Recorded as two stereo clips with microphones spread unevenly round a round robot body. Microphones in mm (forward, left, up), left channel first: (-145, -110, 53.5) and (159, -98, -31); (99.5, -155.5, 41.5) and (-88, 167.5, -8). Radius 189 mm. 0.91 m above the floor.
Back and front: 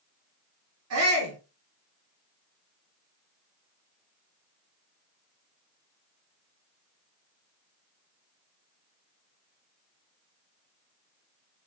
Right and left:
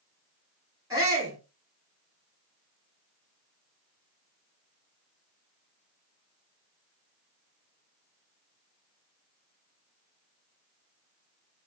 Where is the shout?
40° left, 3 m.